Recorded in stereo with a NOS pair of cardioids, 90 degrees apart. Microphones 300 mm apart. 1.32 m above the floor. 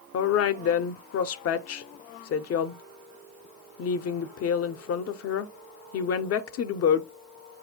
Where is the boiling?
I don't hear boiling.